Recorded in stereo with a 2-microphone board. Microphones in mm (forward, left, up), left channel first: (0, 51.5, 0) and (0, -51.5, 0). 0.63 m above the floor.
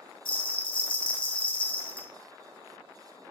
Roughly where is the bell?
Left.